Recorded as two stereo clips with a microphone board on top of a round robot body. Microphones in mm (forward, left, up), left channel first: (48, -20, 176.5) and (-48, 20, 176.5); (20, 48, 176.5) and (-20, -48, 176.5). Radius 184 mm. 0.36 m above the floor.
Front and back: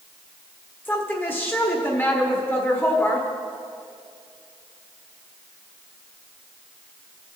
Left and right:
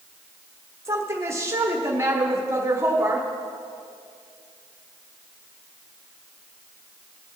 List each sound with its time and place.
0.8 s a woman speaking: 75° right, 1.5 m